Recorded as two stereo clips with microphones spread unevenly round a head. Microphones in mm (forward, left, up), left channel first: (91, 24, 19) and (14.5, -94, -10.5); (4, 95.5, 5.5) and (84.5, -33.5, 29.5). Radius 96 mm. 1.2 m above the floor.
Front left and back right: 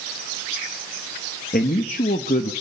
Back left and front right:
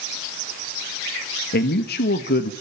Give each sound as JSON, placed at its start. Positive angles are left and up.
{"t": 1.5, "sound": "a man speaking", "azimuth_deg": 110, "distance_m": 1.5}